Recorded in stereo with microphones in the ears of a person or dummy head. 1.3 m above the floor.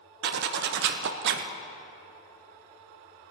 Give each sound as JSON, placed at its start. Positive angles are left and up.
{"t": 0.2, "sound": "a zipper", "side_deg": -50, "distance_m": 0.7}